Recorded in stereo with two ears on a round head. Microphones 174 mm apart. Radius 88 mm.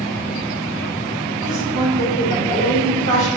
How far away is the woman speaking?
About 2.5 m.